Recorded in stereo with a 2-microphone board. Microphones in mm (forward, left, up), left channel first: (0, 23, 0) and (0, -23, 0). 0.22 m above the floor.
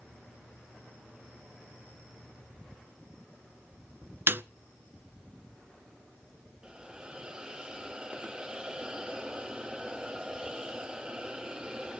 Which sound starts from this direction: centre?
A hiss, at 6.6 s.